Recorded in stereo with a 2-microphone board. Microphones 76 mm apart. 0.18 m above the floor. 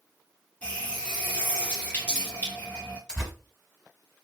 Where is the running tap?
20° left (ahead or behind), 1.9 m.